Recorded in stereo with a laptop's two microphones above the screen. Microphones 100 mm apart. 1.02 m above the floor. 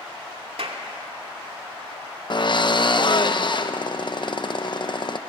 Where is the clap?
70° right (ahead or behind), 2.5 m.